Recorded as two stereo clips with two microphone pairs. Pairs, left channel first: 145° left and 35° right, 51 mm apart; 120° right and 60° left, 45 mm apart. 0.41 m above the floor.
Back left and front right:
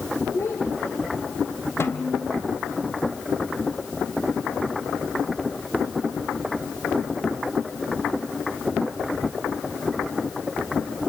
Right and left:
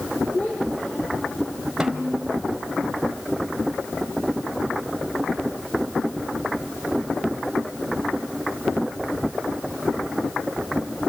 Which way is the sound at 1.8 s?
140° left.